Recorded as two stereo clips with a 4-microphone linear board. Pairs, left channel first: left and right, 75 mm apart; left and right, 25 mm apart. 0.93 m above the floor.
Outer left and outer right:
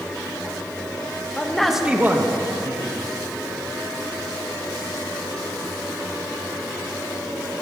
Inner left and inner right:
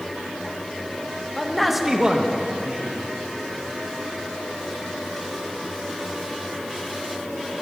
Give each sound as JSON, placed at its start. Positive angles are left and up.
{"t": 1.4, "sound": "a man speaking", "side_deg": 15, "distance_m": 0.9}